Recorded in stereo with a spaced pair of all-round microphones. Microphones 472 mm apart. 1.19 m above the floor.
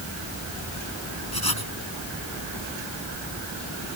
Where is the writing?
50° left (ahead or behind).